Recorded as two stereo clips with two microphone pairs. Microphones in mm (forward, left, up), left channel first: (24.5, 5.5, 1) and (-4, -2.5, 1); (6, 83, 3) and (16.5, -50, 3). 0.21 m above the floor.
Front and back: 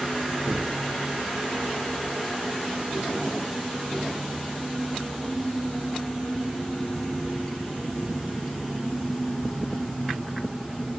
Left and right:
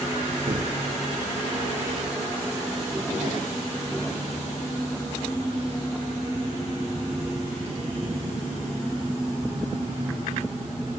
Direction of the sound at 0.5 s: 130° right.